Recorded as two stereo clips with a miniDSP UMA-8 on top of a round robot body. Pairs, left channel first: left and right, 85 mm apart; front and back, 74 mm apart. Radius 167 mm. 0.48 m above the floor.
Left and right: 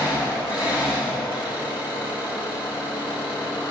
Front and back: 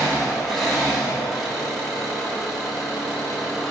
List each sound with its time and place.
0.0 s an engine running: 90° left, 5.5 m